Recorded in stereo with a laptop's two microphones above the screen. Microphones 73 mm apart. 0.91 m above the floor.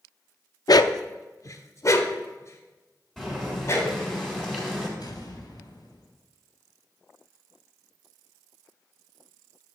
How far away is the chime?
I don't hear a chime.